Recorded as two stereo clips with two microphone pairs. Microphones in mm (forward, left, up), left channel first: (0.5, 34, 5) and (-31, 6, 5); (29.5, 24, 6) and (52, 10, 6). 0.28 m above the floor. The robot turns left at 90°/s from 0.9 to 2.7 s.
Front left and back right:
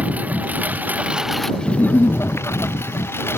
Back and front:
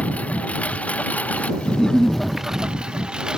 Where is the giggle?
90° left; by 2.2 s 45° left.